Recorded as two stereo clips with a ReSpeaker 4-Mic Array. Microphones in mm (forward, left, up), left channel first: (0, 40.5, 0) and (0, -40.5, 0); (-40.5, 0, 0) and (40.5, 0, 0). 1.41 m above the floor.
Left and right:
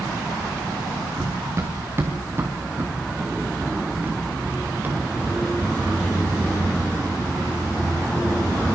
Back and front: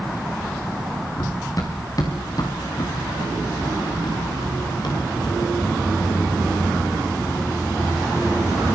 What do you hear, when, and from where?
1.2 s running footsteps: 140° right, 4 m; by 8.7 s 160° right, 13 m